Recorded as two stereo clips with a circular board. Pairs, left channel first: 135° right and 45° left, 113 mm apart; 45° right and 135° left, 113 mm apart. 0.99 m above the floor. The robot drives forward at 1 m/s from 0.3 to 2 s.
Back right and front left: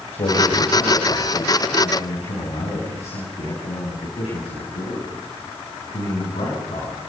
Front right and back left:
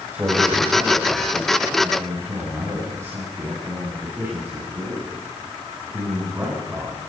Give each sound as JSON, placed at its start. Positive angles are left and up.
{"t": 0.1, "sound": "a man speaking", "azimuth_deg": -150, "distance_m": 5.0}